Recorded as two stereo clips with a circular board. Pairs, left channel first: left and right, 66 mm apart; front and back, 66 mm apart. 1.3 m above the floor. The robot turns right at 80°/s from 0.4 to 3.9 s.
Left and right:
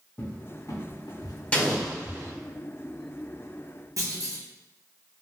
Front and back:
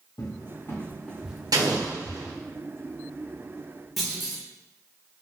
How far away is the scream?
No scream in this recording.